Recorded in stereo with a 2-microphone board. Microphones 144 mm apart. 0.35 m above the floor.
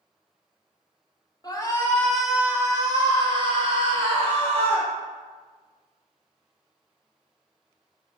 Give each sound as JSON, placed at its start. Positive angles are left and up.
{"t": 1.4, "sound": "a shout", "side_deg": 30, "distance_m": 1.1}